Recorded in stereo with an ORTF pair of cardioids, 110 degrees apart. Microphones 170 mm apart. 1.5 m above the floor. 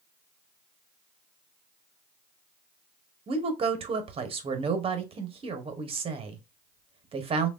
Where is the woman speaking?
35° right, 0.8 m.